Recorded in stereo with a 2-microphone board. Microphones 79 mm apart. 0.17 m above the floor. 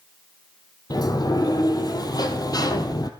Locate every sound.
0.9 s a sliding door: 55° left (ahead or behind), 1.8 m